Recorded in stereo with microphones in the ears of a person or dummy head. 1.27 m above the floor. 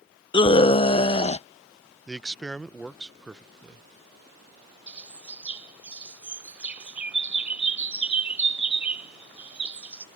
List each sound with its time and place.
0.3 s a scream: 25° left (ahead or behind); by 1.5 s 30° left (ahead or behind)
2.1 s a man speaking: centre (ahead or behind)
4.9 s a bird: 5° right (ahead or behind)